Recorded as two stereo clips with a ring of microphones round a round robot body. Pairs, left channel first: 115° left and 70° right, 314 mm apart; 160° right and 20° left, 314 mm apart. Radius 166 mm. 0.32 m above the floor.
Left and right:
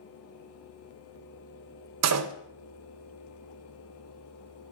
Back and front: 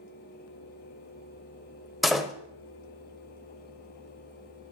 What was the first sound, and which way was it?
A door slam, 65° right.